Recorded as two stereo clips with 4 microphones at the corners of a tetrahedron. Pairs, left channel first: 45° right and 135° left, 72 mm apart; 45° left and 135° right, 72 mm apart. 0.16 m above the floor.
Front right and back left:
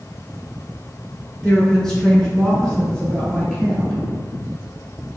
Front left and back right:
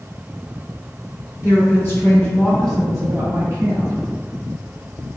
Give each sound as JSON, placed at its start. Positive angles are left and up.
{"t": 1.4, "sound": "a woman speaking", "azimuth_deg": 40, "distance_m": 1.7}